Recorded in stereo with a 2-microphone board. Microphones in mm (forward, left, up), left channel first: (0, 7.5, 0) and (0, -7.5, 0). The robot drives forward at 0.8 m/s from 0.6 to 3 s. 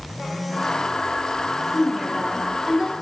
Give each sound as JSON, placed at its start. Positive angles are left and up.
{"t": 1.7, "sound": "a woman speaking", "side_deg": -35, "distance_m": 2.5}